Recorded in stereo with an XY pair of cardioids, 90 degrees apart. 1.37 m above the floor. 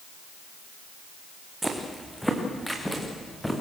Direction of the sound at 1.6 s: 10° right.